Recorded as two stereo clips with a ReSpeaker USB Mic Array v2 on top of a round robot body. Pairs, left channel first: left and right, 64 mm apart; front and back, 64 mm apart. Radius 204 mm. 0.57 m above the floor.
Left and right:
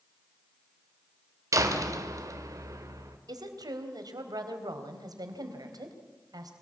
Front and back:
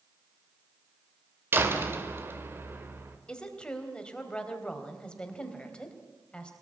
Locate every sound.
1.5 s a door slam: 125° right, 2.5 m
3.3 s a woman speaking: 75° right, 3.5 m